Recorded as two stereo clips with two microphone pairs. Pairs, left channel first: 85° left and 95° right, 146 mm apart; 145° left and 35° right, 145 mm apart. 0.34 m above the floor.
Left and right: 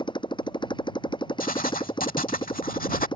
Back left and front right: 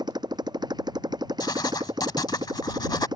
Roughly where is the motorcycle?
Ahead left.